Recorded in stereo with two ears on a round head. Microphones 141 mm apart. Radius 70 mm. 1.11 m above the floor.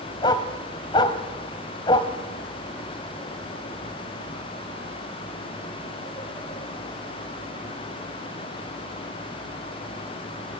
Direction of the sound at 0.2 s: 30° left (ahead or behind).